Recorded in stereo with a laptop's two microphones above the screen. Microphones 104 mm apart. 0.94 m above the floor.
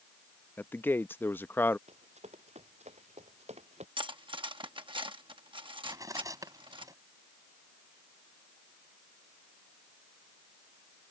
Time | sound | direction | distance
0.6 | a man speaking | 20° left (ahead or behind) | ?
1.9 | running footsteps | 85° right | ?
4.0 | cutlery clinking | 50° right (ahead or behind) | ?
5.8 | cutlery clinking | 30° right (ahead or behind) | ?